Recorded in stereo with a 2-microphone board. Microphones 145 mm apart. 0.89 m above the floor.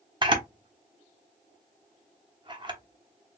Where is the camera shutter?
35° right (ahead or behind), 0.9 m.